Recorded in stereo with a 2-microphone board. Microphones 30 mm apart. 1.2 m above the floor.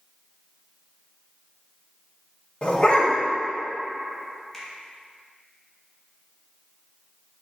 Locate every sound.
2.6 s a dog barking: 35° left (ahead or behind), 2 m
4.5 s a finger snap: 10° left (ahead or behind), 2.5 m